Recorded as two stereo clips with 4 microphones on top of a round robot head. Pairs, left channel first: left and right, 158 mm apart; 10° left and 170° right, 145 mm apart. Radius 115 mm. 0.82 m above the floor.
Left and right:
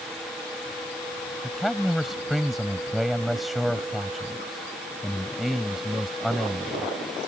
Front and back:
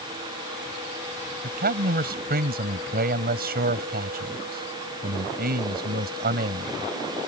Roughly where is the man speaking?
Behind.